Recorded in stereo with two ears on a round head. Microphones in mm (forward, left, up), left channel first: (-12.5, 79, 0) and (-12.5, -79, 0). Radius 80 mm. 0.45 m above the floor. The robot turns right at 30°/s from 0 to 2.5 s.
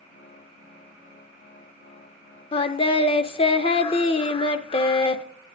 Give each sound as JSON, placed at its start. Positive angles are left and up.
{"t": 2.5, "sound": "singing", "side_deg": 30, "distance_m": 0.6}